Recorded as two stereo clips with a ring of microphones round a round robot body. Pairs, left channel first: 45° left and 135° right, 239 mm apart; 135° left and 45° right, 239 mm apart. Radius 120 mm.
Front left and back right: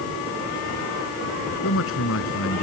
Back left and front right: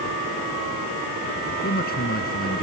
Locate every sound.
1.6 s a man speaking: 80° left